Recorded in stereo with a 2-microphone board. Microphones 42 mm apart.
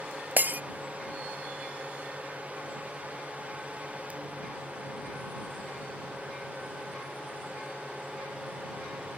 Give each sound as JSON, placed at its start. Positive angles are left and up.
{"t": 0.4, "sound": "breaking glass", "side_deg": -45}